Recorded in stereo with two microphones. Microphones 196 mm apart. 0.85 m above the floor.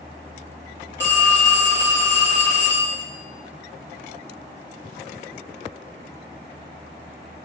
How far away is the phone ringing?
About 0.8 m.